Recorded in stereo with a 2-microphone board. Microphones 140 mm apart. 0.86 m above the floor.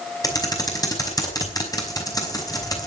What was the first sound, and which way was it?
Typing on a keyboard, 25° left (ahead or behind).